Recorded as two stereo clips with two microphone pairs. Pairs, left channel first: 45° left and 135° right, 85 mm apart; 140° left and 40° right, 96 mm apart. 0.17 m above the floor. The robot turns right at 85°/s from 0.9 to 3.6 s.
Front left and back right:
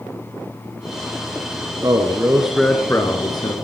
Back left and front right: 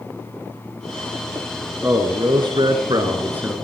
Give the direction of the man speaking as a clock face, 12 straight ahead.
3 o'clock.